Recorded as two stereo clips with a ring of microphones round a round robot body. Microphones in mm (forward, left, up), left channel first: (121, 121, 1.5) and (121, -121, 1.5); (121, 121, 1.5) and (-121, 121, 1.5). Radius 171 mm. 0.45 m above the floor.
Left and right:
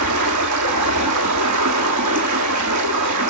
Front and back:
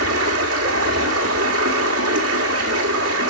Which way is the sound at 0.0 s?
125° right.